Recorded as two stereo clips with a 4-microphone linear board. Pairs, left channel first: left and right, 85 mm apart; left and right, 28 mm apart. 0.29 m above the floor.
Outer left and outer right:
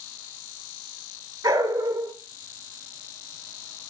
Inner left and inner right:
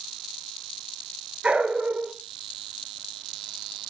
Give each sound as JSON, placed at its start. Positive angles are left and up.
{"t": 1.4, "sound": "a dog barking", "side_deg": -40, "distance_m": 1.8}